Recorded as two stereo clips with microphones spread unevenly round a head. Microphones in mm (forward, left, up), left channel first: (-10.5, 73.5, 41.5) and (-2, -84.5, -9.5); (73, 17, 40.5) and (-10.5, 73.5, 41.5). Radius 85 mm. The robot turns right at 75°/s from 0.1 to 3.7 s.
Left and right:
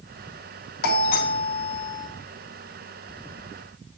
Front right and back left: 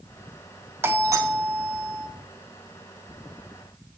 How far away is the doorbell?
About 1.2 m.